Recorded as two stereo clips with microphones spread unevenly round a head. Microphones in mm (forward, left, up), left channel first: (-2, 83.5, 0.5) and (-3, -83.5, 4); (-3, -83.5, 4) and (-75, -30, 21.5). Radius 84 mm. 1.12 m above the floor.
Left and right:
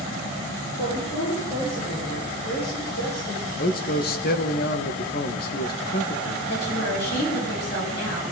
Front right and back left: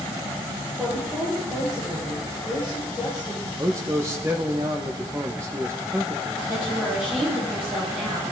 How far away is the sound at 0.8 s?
About 4.5 m.